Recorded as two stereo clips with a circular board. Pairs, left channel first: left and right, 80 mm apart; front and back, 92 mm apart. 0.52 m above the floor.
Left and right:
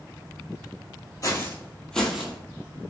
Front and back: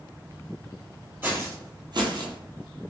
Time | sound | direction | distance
1.2 | footsteps | 120° left | 0.7 m